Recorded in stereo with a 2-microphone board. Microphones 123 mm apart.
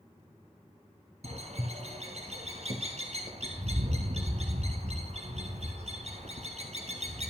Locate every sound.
1.2 s a bird: 65° right (ahead or behind), 1.1 m